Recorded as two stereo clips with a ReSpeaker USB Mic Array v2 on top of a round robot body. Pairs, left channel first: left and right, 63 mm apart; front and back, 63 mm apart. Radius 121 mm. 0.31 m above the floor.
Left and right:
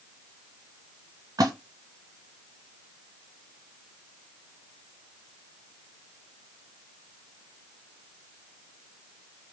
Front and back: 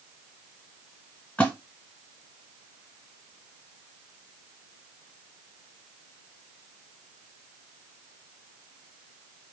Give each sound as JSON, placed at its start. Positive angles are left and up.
{"t": 1.4, "sound": "a splash", "azimuth_deg": -65, "distance_m": 1.7}